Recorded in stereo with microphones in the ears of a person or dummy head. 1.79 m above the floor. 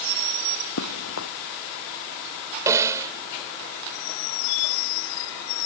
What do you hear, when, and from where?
0.8 s running footsteps: 80° left
2.7 s a snare drum: 25° right (ahead or behind)